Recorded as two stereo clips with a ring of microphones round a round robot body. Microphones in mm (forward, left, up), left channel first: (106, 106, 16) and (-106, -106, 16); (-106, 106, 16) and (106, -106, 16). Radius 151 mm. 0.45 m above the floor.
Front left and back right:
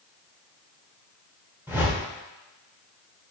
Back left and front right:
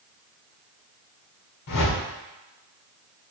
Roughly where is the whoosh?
Behind left.